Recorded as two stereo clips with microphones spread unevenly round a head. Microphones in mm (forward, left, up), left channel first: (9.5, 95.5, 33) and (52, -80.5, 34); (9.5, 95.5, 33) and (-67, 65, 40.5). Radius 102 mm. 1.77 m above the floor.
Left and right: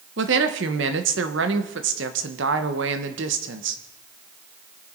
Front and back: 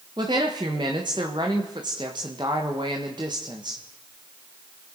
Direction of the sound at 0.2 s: 100° right.